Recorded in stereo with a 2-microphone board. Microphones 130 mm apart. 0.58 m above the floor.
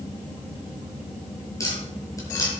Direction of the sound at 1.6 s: 25° left (ahead or behind).